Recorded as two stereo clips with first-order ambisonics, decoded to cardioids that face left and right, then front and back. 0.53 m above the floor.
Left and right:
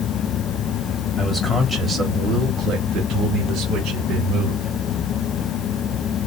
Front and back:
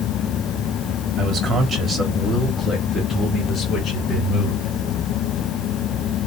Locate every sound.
1.2 s a man speaking: 160° left, 1.4 m; by 4.7 s 55° right, 3 m